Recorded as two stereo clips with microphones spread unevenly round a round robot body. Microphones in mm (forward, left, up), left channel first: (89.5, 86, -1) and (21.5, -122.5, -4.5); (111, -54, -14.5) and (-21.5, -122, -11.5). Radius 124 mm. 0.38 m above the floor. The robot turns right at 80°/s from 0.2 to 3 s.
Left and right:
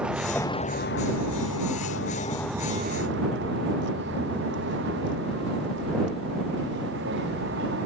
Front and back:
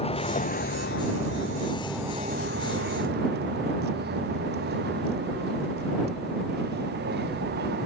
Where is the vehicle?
20° right; by 7.9 s 160° right.